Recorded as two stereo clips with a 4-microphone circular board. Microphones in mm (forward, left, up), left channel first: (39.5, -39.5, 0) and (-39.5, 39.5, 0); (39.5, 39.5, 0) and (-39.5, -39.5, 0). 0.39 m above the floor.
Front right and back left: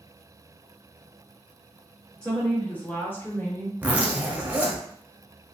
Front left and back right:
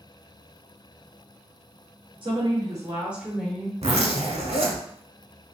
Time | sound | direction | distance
2.2 | a woman speaking | 125° right | 1.1 m
3.8 | a zipper | 150° right | 0.8 m